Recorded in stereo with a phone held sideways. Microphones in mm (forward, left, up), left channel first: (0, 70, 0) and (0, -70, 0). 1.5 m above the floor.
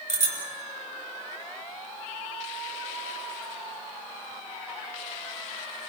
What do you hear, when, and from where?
0.1 s a bicycle bell: 60° right (ahead or behind), 6 m